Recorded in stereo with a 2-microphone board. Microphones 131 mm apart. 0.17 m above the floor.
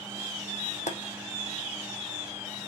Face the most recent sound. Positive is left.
turn(degrees=65)  # may be behind; listen again after turning